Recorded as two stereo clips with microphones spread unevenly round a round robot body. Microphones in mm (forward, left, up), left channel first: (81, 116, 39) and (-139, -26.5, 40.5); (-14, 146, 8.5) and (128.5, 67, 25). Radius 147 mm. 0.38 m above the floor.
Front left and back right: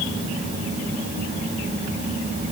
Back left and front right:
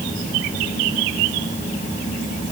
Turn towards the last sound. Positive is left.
No sound to turn to.